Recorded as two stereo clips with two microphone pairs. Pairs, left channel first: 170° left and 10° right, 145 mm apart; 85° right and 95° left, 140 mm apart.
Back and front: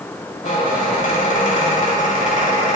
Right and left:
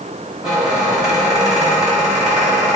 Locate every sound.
0.4 s a squeak: straight behind, 1.1 m